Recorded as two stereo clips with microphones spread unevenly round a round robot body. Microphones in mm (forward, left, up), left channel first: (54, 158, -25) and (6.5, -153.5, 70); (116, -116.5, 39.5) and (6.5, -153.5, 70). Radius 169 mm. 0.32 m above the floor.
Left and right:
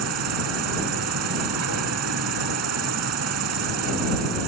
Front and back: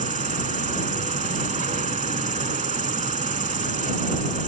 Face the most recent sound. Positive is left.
turn(degrees=-145)